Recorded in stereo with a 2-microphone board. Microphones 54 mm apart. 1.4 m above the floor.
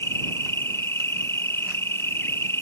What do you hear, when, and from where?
0.0 s an insect: 55° left (ahead or behind)